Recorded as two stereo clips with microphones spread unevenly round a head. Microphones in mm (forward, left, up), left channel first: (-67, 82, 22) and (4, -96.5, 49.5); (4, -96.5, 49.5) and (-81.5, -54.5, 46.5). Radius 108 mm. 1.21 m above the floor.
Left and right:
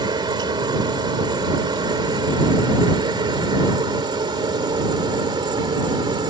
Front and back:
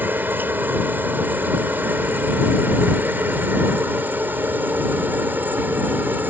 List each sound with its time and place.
0.0 s a helicopter: 135° right